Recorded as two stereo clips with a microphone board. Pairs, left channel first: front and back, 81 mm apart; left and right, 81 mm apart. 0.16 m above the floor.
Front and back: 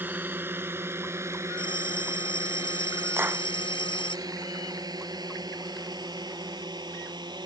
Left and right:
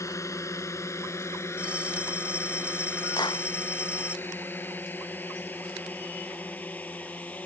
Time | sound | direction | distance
0.0 | a drone | 120° left | ?
1.6 | a bell | 15° right | ?
3.2 | a clap | 115° left | ?